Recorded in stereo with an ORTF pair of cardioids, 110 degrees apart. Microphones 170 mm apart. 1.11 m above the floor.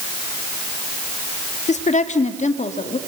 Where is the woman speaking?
45° left, 2 m.